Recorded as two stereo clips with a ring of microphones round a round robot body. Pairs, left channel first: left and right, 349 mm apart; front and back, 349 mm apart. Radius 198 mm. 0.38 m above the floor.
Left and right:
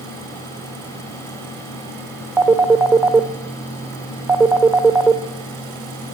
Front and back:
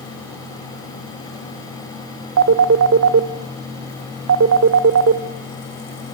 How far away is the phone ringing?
About 0.9 m.